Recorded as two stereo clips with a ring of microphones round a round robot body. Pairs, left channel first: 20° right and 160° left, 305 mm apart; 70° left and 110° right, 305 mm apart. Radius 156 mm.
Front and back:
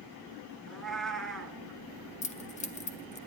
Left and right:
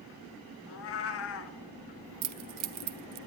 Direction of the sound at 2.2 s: 90° right.